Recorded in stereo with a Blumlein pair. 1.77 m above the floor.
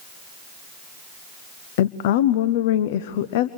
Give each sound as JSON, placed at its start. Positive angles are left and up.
{"t": 1.8, "sound": "a woman speaking", "azimuth_deg": 50, "distance_m": 0.7}